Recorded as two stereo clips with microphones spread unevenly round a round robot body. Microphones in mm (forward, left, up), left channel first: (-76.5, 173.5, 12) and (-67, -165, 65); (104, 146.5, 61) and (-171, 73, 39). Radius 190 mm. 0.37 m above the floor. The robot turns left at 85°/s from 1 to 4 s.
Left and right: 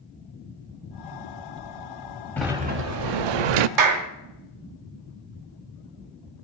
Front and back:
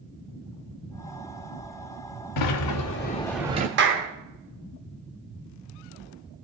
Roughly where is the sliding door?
Ahead.